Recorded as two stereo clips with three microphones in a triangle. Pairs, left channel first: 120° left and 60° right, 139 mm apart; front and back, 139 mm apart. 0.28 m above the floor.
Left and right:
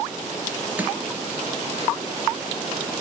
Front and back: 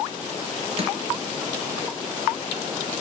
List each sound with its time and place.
0.8 s crushing: 140° right, 3.5 m